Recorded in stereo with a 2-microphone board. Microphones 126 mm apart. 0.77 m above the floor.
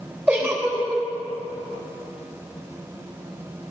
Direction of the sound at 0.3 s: 20° right (ahead or behind).